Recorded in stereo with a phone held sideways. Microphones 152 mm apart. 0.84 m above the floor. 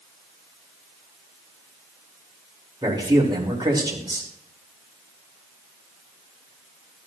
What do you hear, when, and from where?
2.8 s a man speaking: 30° right (ahead or behind), 3 m